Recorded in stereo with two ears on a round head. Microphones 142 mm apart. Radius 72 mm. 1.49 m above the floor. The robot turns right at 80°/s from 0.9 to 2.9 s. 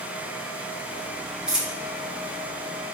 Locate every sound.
1.5 s a dropped coin: 5° right (ahead or behind), 0.8 m; by 1.8 s 5° left (ahead or behind), 0.8 m